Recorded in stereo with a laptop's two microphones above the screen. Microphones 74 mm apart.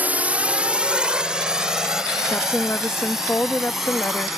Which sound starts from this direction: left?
A woman speaking, at 2.3 s.